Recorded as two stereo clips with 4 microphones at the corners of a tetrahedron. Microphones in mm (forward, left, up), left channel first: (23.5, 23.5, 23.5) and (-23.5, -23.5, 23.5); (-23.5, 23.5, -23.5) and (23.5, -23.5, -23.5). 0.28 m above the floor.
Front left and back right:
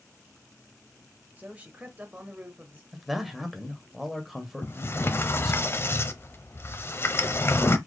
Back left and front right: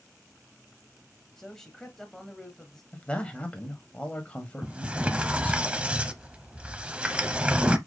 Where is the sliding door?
20° left, 0.8 m.